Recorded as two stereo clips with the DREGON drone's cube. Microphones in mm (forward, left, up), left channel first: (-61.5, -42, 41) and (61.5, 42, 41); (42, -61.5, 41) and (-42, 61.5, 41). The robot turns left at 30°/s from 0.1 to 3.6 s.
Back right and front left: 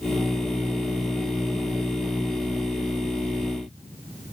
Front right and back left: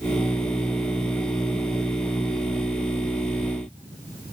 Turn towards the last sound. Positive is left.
No sound to turn to.